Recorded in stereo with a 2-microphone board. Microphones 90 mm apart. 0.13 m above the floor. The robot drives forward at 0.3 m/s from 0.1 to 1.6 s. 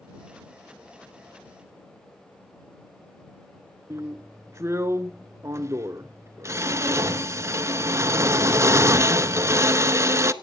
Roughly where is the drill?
Right.